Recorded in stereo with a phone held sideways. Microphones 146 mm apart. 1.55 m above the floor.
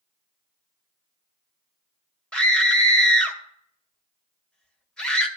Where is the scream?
5° left (ahead or behind), 2 m.